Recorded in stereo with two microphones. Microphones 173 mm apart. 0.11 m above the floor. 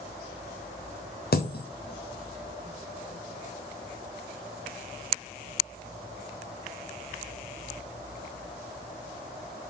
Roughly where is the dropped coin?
Left.